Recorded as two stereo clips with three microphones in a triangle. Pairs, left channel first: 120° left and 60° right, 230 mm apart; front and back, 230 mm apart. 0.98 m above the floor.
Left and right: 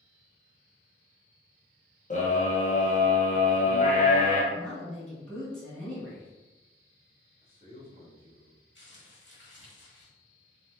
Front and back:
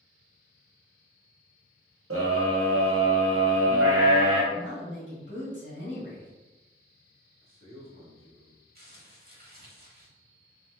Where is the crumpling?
140° left, 1.0 m.